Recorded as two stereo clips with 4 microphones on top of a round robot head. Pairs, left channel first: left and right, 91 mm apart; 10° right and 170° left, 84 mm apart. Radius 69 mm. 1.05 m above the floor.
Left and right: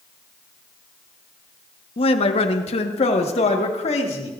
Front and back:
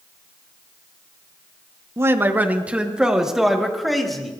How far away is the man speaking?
About 1.1 m.